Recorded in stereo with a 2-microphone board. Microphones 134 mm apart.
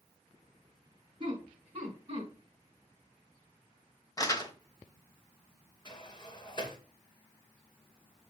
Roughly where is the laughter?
Right.